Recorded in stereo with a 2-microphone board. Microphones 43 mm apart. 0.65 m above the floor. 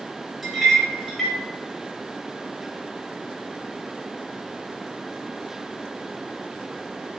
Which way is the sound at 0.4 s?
Centre (ahead or behind).